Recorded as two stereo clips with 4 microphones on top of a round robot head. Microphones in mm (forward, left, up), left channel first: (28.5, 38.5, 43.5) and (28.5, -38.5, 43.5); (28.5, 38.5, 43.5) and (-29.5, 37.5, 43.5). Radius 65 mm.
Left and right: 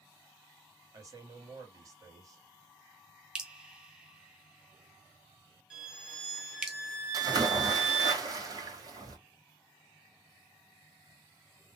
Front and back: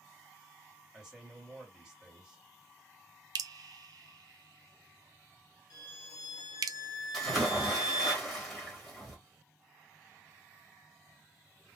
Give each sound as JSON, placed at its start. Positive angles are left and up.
{"t": 0.9, "sound": "a man speaking", "azimuth_deg": -100, "distance_m": 1.6}
{"t": 3.4, "sound": "dripping", "azimuth_deg": -170, "distance_m": 0.5}
{"t": 5.7, "sound": "a violin", "azimuth_deg": -10, "distance_m": 1.5}
{"t": 7.1, "sound": "a splash", "azimuth_deg": -85, "distance_m": 1.7}